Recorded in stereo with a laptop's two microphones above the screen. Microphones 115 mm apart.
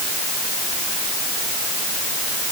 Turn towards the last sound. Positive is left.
No sound to turn to.